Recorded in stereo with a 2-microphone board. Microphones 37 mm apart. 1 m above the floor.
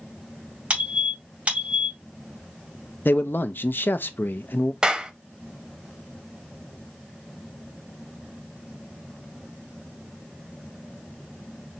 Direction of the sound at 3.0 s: 70° left (ahead or behind).